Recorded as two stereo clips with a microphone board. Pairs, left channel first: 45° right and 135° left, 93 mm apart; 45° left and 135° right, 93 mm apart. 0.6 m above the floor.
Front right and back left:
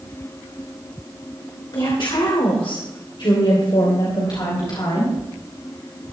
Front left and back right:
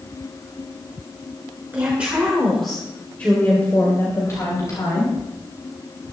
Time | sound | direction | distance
1.7 | a woman speaking | 65° right | 2.5 m